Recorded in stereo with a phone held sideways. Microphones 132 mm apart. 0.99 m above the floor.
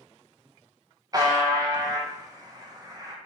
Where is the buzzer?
30° right (ahead or behind), 0.5 m.